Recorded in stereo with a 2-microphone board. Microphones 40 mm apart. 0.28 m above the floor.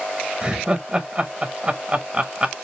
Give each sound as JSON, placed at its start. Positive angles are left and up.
{"t": 0.4, "sound": "laughter", "side_deg": -20, "distance_m": 0.9}